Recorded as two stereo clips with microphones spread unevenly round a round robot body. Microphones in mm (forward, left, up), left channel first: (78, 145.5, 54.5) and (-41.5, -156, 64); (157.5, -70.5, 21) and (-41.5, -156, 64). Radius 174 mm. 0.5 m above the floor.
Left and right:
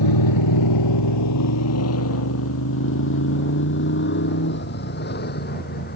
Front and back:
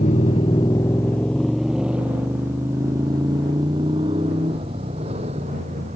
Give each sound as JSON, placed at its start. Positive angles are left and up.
{"t": 0.0, "sound": "a motorcycle", "azimuth_deg": 95}